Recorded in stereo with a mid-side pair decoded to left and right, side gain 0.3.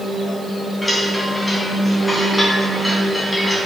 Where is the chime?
15° left, 3 m.